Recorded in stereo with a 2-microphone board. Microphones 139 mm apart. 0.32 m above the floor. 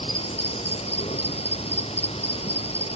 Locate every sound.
0.0 s an insect: 45° left (ahead or behind)